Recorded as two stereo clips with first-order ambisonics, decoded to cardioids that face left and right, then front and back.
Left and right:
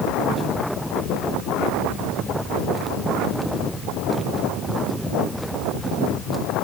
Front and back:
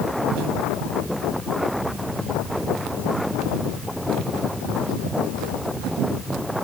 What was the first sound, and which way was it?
Only background noise.